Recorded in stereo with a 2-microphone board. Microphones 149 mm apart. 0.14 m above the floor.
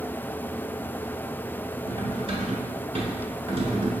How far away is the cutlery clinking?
About 1.0 m.